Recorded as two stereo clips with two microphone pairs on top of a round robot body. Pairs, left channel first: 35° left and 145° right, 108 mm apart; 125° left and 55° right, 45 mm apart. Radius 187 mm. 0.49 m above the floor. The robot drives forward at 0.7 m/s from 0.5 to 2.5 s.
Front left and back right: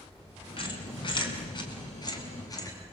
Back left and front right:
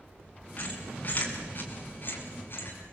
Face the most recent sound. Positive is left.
turn(degrees=90)